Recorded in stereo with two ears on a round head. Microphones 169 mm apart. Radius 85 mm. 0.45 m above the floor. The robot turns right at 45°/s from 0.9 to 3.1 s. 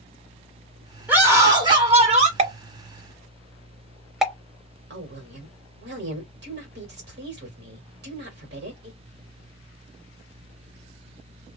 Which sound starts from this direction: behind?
A scream, at 1.1 s.